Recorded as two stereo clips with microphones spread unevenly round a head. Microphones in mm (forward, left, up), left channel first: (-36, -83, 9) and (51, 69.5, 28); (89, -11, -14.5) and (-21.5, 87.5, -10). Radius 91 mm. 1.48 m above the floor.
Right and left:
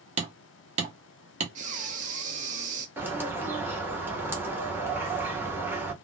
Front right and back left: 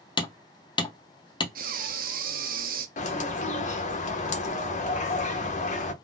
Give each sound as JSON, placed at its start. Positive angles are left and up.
{"t": 0.2, "sound": "hammering", "azimuth_deg": 15, "distance_m": 0.8}
{"t": 1.6, "sound": "breathing", "azimuth_deg": 110, "distance_m": 0.6}
{"t": 3.0, "sound": "a bird", "azimuth_deg": -15, "distance_m": 0.8}